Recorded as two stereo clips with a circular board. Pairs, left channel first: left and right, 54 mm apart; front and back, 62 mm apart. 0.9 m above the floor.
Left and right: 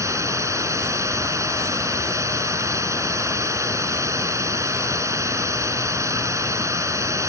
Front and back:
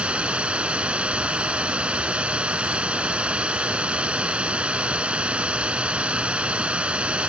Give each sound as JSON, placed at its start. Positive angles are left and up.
{"t": 0.0, "sound": "running water", "azimuth_deg": -110}